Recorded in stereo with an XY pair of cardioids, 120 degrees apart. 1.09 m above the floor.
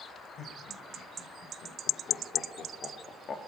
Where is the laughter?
60° left, 5.5 m; by 3.4 s 40° left, 2 m.